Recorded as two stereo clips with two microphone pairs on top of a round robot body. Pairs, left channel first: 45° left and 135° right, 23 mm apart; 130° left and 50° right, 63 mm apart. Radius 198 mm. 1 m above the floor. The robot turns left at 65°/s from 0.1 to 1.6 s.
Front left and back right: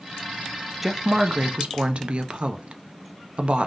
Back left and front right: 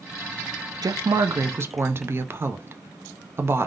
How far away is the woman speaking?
About 0.5 m.